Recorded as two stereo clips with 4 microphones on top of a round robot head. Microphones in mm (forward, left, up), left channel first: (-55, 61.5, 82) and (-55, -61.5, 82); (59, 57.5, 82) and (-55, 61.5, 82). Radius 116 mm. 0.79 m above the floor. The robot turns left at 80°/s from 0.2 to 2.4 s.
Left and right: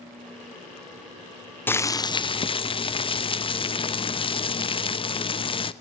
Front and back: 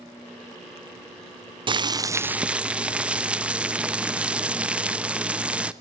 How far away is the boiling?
About 0.7 m.